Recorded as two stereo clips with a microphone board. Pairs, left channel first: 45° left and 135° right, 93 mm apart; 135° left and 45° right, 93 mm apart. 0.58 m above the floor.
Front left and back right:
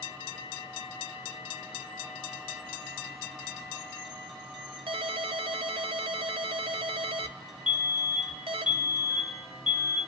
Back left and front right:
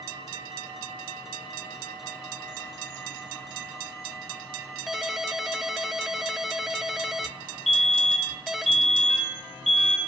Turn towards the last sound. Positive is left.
turn(degrees=50)